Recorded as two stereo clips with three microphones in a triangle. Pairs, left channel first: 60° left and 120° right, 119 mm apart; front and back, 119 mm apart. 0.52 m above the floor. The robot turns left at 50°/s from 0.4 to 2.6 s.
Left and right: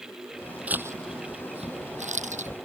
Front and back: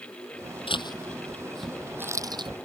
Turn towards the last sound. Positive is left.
turn(degrees=-135)